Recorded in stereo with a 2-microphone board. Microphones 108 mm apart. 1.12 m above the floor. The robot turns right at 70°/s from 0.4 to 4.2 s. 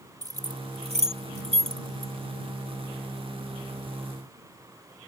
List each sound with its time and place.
0.2 s keys jangling: 35° right (ahead or behind); by 2.1 s 25° right (ahead or behind)